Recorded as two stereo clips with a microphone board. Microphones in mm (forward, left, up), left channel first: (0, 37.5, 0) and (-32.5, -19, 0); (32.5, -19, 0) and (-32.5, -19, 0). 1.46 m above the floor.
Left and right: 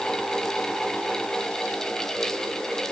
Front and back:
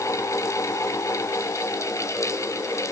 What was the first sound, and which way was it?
Only background noise.